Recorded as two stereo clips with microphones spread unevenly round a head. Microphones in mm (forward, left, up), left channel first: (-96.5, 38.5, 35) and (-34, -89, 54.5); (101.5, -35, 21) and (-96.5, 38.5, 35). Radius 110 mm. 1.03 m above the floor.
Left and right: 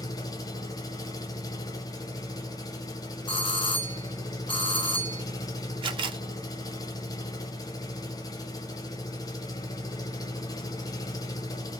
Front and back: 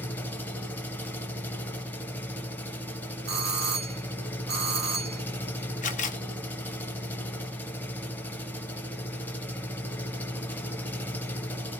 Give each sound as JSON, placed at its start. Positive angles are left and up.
{"t": 0.0, "sound": "an engine running", "azimuth_deg": 60, "distance_m": 0.8}
{"t": 3.3, "sound": "a doorbell", "azimuth_deg": 145, "distance_m": 1.4}
{"t": 5.8, "sound": "a camera shutter", "azimuth_deg": -20, "distance_m": 0.9}